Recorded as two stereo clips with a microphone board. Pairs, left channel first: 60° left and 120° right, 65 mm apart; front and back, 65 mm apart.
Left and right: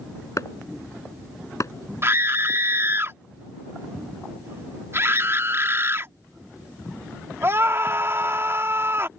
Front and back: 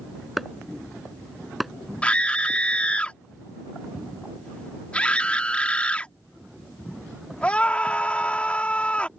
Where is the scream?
70° right.